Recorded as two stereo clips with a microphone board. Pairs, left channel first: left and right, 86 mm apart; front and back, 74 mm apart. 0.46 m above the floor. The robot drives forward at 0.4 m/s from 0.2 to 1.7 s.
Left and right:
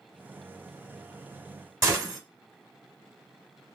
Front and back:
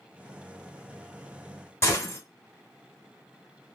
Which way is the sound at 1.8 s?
45° right.